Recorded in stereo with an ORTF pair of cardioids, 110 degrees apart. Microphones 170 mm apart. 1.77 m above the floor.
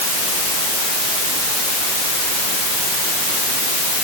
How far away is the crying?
No crying in this recording.